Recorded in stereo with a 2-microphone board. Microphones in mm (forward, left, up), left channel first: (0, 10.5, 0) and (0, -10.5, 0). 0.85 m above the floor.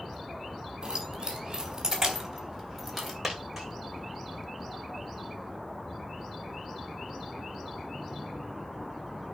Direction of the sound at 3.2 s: Centre (ahead or behind).